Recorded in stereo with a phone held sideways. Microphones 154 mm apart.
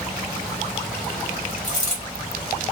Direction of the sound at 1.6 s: 50° left (ahead or behind).